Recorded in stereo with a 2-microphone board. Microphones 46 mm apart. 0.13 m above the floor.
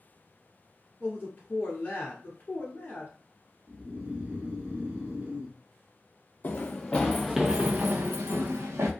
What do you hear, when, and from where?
1.0 s a man speaking: 35° left (ahead or behind), 1.3 m
3.7 s snoring: 35° right (ahead or behind), 1.6 m
6.4 s running footsteps: 40° left (ahead or behind), 0.7 m; by 8.9 s 75° right (ahead or behind), 1.0 m